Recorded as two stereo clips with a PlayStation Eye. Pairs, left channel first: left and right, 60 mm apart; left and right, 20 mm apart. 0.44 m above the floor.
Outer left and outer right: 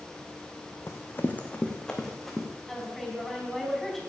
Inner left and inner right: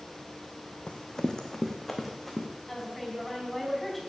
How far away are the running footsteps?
About 1.8 m.